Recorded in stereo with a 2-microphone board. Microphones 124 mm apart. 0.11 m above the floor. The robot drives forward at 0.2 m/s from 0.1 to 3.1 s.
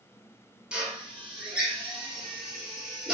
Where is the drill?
10° right (ahead or behind), 1.1 m; by 3.1 s 5° right (ahead or behind), 1.5 m.